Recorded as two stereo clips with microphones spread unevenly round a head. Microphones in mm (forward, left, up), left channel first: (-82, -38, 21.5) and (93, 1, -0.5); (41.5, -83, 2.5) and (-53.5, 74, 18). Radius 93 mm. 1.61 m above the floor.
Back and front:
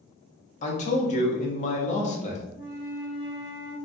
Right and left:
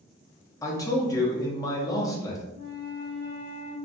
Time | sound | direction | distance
0.6 | a man speaking | 130° right | 0.6 m
2.5 | a flute | 115° right | 1.1 m